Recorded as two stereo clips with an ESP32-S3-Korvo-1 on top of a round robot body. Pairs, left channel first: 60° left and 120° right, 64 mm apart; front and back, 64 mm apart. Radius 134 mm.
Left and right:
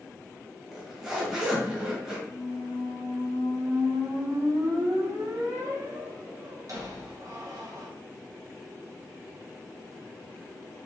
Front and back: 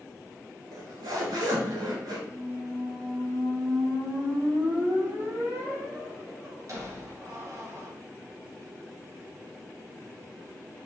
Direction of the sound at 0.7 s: 160° left.